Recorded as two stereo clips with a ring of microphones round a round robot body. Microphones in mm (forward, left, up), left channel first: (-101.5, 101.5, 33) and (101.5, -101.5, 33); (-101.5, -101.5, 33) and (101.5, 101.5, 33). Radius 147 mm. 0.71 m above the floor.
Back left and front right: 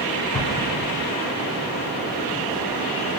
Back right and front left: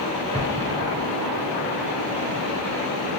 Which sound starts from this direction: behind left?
An explosion, at 0.3 s.